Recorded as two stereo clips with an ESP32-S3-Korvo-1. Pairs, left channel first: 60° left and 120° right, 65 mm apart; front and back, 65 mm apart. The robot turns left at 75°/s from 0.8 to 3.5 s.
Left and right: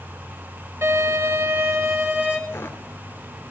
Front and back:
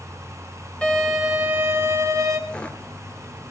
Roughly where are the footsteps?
Ahead left.